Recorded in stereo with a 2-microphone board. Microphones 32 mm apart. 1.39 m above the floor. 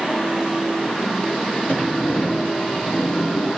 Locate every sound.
1.7 s a sliding door: 90° left, 2.5 m